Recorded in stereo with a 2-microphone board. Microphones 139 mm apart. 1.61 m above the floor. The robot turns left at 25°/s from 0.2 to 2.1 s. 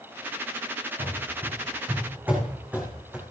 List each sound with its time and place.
1.0 s running footsteps: 45° right (ahead or behind), 4.5 m; by 3.2 s 5° right (ahead or behind), 3.5 m